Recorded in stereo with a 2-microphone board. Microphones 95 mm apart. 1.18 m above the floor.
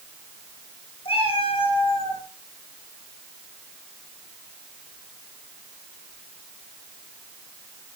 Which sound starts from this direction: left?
A cat meowing, at 1.1 s.